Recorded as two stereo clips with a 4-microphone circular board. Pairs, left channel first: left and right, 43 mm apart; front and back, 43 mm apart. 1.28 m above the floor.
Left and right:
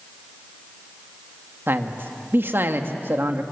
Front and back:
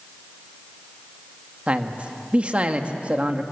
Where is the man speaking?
120° right, 1.7 m.